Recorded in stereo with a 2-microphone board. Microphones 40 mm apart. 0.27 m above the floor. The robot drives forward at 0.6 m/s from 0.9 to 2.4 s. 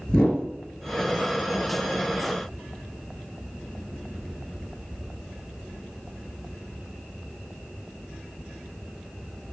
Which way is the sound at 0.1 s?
30° left (ahead or behind).